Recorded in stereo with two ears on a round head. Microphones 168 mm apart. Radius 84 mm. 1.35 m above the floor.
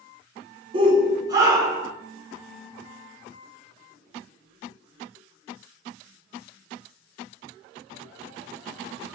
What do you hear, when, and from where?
0.7 s a shout: 25° right (ahead or behind), 1.5 m; by 1.9 s 15° right (ahead or behind), 2 m